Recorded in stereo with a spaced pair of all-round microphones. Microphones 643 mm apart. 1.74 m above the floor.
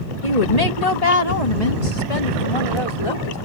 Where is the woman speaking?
75° left (ahead or behind); by 3.4 s 55° left (ahead or behind).